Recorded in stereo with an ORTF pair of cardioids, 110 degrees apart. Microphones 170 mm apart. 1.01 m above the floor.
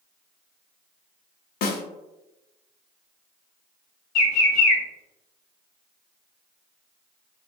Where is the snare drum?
65° left, 0.6 m.